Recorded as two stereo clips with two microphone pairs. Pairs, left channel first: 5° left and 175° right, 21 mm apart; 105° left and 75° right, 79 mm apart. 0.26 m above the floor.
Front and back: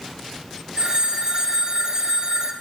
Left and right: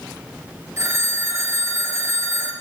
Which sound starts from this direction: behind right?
A phone ringing, at 0.8 s.